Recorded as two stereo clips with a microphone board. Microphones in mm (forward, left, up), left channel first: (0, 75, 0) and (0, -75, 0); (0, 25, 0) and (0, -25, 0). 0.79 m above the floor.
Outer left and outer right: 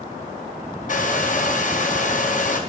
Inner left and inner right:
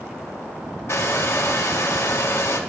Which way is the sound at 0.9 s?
60° left (ahead or behind).